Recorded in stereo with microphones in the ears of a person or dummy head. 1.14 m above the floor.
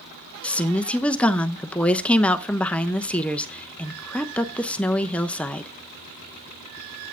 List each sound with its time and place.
0.4 s a woman speaking: 5° left (ahead or behind), 0.7 m